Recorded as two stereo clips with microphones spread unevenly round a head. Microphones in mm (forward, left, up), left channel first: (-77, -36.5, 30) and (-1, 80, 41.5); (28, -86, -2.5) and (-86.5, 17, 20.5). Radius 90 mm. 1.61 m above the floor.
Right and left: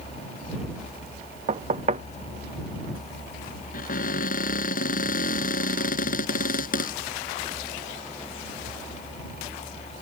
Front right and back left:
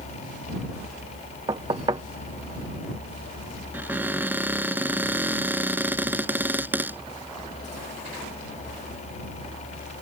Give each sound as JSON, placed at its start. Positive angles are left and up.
{"t": 1.5, "sound": "knocking", "azimuth_deg": 80}
{"t": 3.7, "sound": "a cupboard door", "azimuth_deg": -145}